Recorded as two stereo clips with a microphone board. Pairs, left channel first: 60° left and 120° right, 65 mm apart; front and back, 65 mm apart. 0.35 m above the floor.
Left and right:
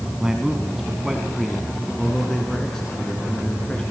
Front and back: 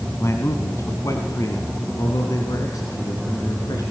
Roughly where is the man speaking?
Ahead right.